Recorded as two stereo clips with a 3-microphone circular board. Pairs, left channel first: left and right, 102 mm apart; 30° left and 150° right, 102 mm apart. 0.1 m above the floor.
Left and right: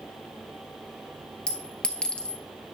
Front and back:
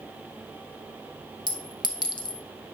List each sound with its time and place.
1.5 s a clink: 15° left, 1.2 m